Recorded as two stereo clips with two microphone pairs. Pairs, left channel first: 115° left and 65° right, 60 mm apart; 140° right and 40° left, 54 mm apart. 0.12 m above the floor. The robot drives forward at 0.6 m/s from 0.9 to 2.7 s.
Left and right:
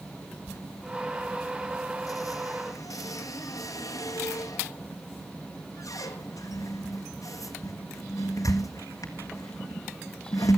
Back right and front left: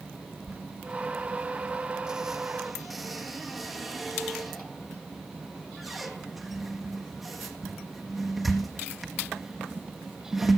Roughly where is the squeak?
Left.